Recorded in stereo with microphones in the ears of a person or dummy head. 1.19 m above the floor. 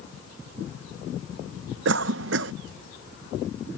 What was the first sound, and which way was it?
A cough, 75° right (ahead or behind).